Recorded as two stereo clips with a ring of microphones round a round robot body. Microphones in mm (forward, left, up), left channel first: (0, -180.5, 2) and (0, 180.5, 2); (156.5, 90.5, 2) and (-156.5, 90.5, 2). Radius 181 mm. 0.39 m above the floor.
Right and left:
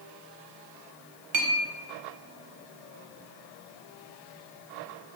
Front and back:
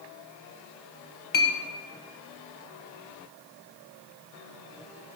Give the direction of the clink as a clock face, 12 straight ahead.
10 o'clock.